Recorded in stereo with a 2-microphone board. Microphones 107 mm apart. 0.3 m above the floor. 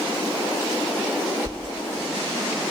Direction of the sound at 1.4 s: 35° right (ahead or behind).